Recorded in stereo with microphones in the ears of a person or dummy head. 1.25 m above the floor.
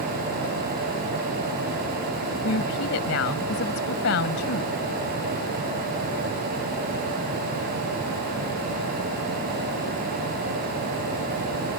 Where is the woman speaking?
60° left (ahead or behind).